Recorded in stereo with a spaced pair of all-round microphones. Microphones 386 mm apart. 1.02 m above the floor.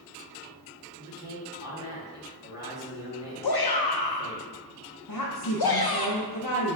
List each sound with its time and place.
1.0 s a man speaking: 10° right (ahead or behind), 1.4 m
3.4 s a shout: 70° left (ahead or behind), 0.6 m
5.1 s a woman speaking: 55° left (ahead or behind), 0.6 m